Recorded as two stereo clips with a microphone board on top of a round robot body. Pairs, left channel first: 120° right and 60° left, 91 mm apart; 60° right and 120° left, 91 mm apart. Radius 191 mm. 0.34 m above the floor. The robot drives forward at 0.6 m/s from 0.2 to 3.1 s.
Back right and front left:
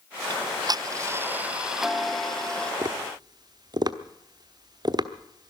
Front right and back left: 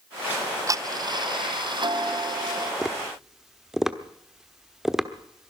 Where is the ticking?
55° left, 0.8 m; by 2.7 s 160° left, 1.3 m.